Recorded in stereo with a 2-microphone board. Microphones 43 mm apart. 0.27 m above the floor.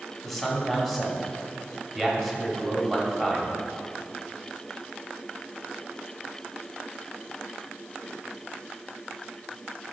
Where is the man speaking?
5° left (ahead or behind), 1.1 m.